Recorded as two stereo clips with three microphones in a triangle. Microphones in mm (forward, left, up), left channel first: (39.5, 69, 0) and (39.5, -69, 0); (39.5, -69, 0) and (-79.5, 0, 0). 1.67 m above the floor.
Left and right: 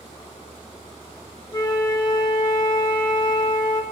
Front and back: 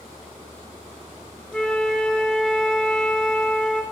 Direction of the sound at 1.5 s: 55° left.